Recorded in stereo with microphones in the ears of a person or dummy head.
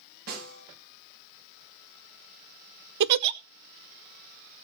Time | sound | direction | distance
0.3 | a snare drum | 60° right (ahead or behind) | 8 m
3.0 | a giggle | 60° right (ahead or behind) | 0.7 m